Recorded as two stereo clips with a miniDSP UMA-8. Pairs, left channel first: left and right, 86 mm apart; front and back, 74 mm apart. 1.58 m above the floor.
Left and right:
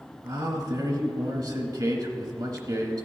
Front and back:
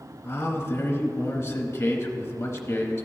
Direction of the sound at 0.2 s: 55° right.